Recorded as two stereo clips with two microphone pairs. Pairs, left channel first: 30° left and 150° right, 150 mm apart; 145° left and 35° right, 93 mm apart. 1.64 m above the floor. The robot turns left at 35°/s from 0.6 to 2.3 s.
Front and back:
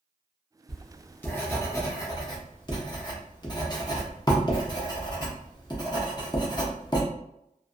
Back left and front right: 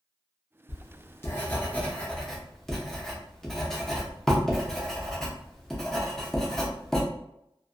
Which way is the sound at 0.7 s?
115° left.